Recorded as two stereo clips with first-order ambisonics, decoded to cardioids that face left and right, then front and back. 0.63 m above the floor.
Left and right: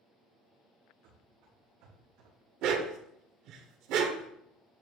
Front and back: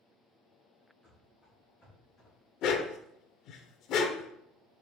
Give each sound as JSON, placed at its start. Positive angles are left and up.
{"t": 1.0, "sound": "running footsteps", "azimuth_deg": -75, "distance_m": 3.5}
{"t": 2.6, "sound": "a dog barking", "azimuth_deg": -50, "distance_m": 0.7}